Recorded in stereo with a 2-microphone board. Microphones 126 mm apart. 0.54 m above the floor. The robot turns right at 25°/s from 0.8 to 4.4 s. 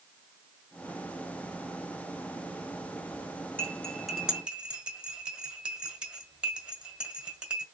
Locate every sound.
3.6 s cutlery clinking: 10° left (ahead or behind), 1.6 m; by 7.7 s 10° right (ahead or behind), 1.6 m